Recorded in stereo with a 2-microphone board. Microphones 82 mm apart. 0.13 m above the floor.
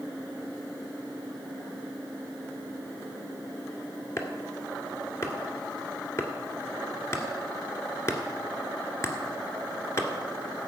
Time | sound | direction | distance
4.2 | chopping | 35° left (ahead or behind) | 1.7 m